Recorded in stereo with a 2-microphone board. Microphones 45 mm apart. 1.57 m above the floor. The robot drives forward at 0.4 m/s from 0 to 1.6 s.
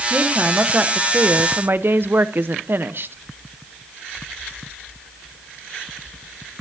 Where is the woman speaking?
30° right (ahead or behind), 1.4 m; by 3.1 s 50° right (ahead or behind), 0.9 m.